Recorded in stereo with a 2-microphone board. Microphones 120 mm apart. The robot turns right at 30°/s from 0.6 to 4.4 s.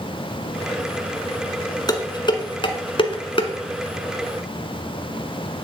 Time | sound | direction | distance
1.9 | dishes clattering | 40° left (ahead or behind) | 1.1 m